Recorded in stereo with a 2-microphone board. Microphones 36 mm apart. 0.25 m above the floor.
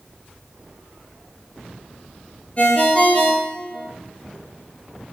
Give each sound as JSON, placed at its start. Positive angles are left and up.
{"t": 2.6, "sound": "a ringtone", "side_deg": 35, "distance_m": 3.0}